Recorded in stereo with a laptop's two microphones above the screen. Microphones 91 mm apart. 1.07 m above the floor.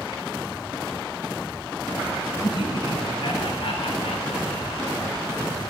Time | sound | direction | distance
2.4 | laughter | 75° left (ahead or behind) | 6 m